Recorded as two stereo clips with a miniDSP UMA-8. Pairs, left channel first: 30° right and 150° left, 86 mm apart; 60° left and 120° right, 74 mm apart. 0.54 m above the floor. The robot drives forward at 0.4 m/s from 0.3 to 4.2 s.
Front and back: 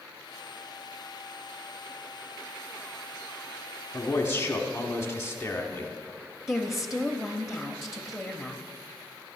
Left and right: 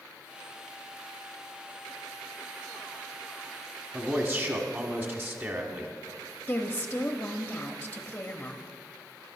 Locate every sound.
3.9 s a man speaking: 70° right, 1.4 m; by 5.9 s 75° right, 1.4 m
6.5 s a woman speaking: 60° left, 0.6 m